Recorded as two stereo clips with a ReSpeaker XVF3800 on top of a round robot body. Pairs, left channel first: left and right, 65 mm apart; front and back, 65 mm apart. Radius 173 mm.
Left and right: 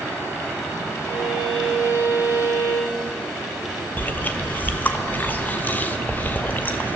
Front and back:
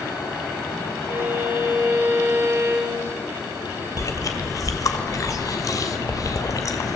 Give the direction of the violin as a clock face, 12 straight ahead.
4 o'clock.